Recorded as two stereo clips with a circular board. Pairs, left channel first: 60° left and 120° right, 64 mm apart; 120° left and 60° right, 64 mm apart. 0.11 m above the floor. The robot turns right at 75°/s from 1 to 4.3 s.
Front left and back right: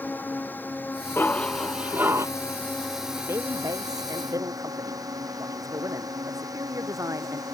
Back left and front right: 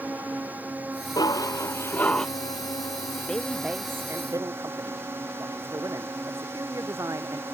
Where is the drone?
Straight ahead; by 7.5 s 110° right.